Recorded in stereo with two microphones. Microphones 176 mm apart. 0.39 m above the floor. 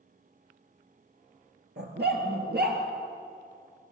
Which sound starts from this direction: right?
A dog barking, at 1.8 s.